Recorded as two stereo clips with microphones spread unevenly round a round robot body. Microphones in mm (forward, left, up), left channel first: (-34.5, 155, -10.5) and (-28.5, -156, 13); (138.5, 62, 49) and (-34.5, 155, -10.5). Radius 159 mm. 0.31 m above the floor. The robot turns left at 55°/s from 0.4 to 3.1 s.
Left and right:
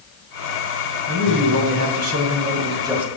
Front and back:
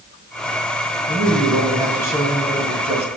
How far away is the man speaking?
About 1.8 m.